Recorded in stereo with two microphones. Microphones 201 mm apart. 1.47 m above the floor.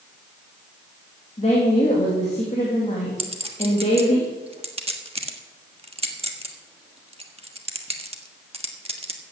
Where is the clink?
30° right (ahead or behind), 1.4 m.